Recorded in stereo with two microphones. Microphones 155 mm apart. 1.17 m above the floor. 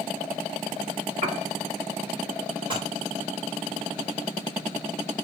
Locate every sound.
1.2 s a piano: 50° right (ahead or behind), 1.8 m
2.7 s dishes clattering: 35° right (ahead or behind), 2 m